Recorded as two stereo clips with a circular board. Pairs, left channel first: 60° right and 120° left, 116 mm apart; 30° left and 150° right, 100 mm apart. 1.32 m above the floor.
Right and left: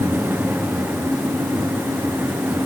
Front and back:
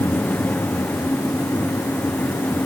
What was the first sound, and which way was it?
Only background noise.